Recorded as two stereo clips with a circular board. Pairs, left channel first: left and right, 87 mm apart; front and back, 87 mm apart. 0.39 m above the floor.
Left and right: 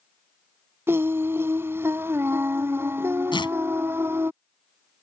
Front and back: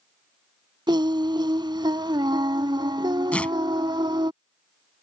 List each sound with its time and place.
0.9 s singing: 150° right
3.3 s tearing paper: 75° left